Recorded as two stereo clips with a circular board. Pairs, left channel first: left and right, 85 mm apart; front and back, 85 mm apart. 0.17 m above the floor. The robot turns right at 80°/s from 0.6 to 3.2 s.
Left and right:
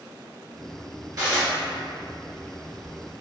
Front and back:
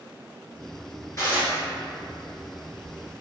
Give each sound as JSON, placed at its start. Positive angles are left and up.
{"t": 1.2, "sound": "dishes clattering", "azimuth_deg": -50, "distance_m": 1.7}